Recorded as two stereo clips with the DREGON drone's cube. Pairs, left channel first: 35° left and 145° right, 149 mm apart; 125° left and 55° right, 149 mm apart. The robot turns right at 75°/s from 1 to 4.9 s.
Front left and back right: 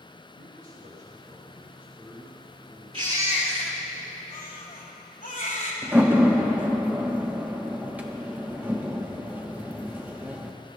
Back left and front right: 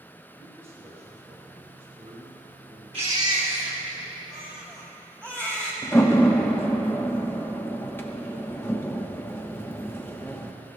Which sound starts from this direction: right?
A baby crying, at 2.9 s.